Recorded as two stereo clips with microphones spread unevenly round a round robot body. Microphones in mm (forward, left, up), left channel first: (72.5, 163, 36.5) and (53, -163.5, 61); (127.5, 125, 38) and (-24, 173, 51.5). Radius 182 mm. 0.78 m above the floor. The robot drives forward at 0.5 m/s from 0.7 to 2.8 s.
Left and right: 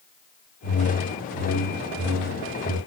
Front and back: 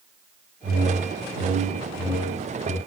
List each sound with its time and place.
0.6 s a whoosh: 145° left, 6 m; by 2.8 s 150° left, 6.5 m